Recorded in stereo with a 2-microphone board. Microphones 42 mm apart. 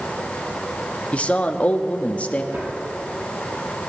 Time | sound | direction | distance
1.1 | a man speaking | 30° left (ahead or behind) | 0.8 m
2.5 | a drawer | 65° right (ahead or behind) | 5.5 m